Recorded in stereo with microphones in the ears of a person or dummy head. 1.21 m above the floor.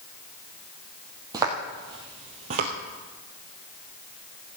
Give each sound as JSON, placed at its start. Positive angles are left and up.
{"t": 1.3, "sound": "footsteps", "side_deg": -15, "distance_m": 1.9}